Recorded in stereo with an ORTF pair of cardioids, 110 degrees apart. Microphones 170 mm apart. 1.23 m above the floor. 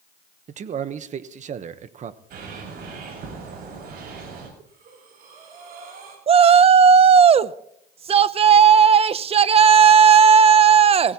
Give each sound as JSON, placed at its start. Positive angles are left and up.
{"t": 0.5, "sound": "a man speaking", "azimuth_deg": -50, "distance_m": 1.1}
{"t": 2.3, "sound": "a bird", "azimuth_deg": -60, "distance_m": 6.5}
{"t": 4.6, "sound": "breathing", "azimuth_deg": -60, "distance_m": 5.5}
{"t": 6.3, "sound": "a shout", "azimuth_deg": -35, "distance_m": 0.8}